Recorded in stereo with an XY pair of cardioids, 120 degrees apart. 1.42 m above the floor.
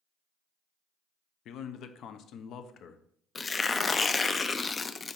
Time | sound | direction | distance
1.4 | a man speaking | 65° left | 0.8 m
3.4 | tearing paper | 25° left | 0.5 m